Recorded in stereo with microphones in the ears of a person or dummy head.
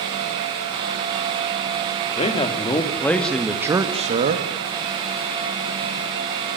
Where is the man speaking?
35° left (ahead or behind), 3 m; by 4.5 s 45° right (ahead or behind), 2 m.